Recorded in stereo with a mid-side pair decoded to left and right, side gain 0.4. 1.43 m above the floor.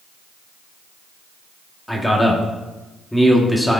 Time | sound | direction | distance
1.9 | a man speaking | 10° left | 1.6 m